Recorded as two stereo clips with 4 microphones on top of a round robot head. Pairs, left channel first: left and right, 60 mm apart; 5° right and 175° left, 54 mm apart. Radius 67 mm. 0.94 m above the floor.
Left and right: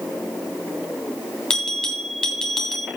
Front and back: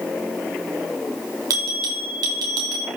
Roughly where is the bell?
Behind.